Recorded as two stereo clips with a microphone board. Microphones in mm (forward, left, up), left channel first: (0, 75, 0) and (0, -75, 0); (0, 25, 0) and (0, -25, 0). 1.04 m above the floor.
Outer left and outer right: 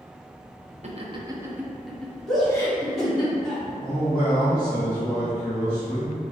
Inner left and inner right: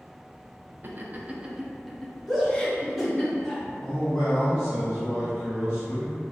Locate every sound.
0.8 s laughter: 50° right (ahead or behind), 0.6 m; by 3.3 s 30° left (ahead or behind), 1.2 m
2.3 s a shout: centre (ahead or behind), 1.4 m
3.8 s a man speaking: 75° left (ahead or behind), 1.5 m